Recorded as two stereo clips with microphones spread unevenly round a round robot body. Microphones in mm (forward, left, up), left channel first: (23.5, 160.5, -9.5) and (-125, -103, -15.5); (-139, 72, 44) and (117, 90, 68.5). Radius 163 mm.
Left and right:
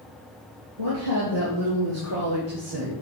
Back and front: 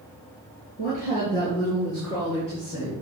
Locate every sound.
0.8 s a woman speaking: 110° right, 6 m; by 2.9 s 120° right, 9 m